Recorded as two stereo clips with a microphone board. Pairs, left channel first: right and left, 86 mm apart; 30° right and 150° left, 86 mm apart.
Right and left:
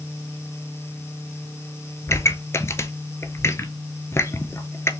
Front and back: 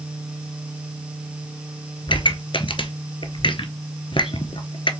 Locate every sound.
2.1 s a pop: 30° right, 0.5 m